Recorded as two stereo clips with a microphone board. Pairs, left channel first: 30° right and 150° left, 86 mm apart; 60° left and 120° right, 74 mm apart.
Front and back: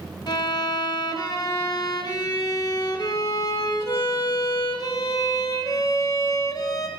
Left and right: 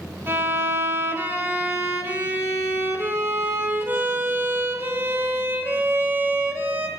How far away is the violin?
About 1.6 m.